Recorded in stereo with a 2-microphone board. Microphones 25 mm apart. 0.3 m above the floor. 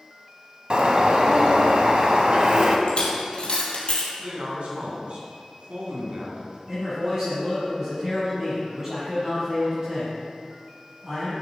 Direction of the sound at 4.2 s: 55° right (ahead or behind).